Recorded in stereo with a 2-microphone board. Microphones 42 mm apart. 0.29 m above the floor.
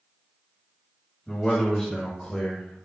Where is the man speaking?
10° left (ahead or behind), 1.4 m; by 2.9 s 15° left (ahead or behind), 1.1 m.